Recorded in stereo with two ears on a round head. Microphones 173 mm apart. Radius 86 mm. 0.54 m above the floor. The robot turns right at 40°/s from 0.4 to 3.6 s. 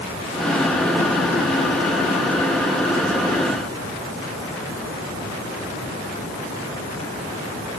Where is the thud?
I don't hear a thud.